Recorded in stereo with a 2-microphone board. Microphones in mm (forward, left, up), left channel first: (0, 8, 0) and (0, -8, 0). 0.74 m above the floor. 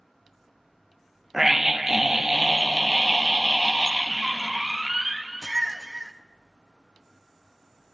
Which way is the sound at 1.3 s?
25° right (ahead or behind).